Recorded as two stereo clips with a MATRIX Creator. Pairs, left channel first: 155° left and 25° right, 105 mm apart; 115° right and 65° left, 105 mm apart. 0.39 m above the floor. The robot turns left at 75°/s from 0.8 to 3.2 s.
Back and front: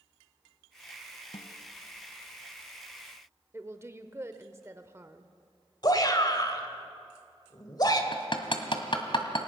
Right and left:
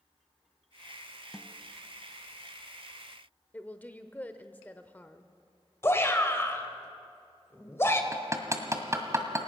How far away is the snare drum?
About 0.8 m.